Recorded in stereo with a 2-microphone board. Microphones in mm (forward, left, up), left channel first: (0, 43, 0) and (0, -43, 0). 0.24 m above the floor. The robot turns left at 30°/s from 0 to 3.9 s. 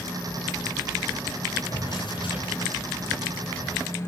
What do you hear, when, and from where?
1.7 s a drawer: 130° left, 9.5 m; by 3.8 s 70° left, 9.5 m